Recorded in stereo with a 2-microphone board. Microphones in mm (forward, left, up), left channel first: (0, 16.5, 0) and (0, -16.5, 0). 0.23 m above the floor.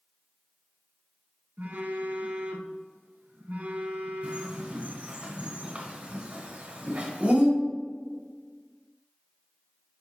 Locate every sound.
1.6 s a phone buzzing: 75° right (ahead or behind), 1.3 m
4.2 s a bird: 40° right (ahead or behind), 2.5 m